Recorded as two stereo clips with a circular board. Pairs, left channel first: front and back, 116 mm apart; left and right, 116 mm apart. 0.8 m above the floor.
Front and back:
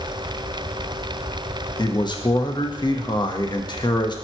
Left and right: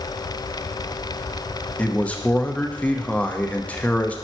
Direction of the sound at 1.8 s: 15° left.